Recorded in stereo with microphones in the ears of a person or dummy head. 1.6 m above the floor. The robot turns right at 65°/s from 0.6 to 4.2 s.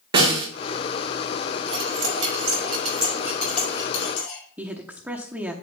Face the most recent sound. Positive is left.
turn(degrees=-10)  # may be behind; listen again after turning